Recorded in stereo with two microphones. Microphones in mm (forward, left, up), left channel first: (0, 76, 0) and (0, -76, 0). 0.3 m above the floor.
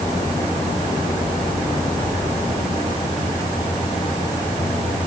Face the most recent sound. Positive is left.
No sound to turn to.